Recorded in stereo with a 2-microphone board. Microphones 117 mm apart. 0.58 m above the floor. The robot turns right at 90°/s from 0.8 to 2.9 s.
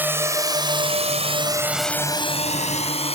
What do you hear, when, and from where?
0.0 s a drone: 15° right (ahead or behind); by 3.1 s 60° left (ahead or behind)